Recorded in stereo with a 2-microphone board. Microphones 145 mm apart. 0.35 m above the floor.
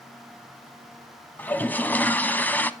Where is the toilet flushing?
10° left (ahead or behind), 0.5 m.